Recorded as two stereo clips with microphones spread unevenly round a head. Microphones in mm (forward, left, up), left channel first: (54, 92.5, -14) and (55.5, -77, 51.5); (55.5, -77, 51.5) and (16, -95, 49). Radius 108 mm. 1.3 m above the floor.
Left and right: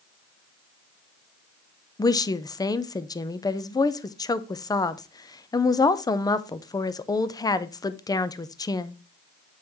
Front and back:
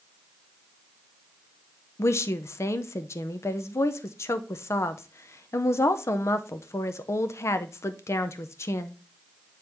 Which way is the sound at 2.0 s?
20° left.